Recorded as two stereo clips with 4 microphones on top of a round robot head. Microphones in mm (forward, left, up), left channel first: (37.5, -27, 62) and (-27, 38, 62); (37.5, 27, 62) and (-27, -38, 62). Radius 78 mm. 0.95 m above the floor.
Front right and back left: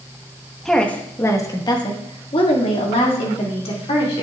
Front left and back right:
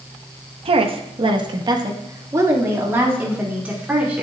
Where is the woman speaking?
130° right, 1.0 m; by 4.2 s 60° right, 2.5 m.